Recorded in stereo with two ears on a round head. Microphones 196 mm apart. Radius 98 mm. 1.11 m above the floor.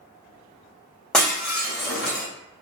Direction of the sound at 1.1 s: 5° left (ahead or behind).